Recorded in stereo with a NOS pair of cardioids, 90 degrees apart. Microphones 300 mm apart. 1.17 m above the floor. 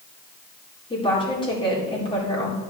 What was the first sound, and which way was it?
A woman speaking, 15° left.